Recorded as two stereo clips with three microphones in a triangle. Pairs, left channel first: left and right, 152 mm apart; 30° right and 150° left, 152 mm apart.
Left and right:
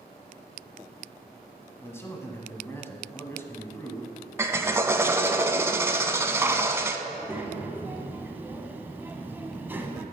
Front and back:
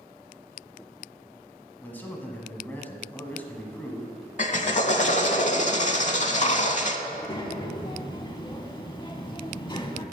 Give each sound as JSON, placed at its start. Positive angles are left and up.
{"t": 1.8, "sound": "a man speaking", "azimuth_deg": 35, "distance_m": 1.1}
{"t": 4.4, "sound": "a drill", "azimuth_deg": -20, "distance_m": 0.6}
{"t": 7.1, "sound": "a child speaking", "azimuth_deg": -25, "distance_m": 0.8}